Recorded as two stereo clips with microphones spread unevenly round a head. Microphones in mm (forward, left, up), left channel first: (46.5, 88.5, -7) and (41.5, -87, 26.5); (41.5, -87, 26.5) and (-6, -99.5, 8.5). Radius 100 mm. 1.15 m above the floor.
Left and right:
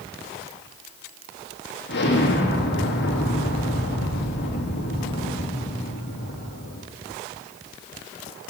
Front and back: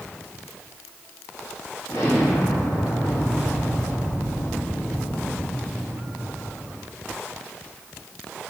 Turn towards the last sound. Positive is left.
turn(degrees=85)